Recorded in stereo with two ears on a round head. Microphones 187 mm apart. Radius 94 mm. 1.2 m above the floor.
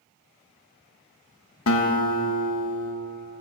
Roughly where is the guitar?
Left.